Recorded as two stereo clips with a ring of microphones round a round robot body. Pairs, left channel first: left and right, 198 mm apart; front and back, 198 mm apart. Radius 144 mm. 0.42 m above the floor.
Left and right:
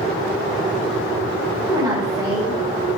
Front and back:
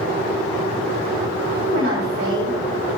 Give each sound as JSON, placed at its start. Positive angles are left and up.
{"t": 1.6, "sound": "a woman speaking", "azimuth_deg": -160, "distance_m": 3.5}